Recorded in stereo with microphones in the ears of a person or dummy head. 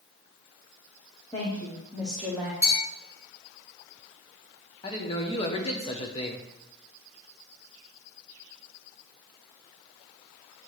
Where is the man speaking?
30° left (ahead or behind), 0.9 m.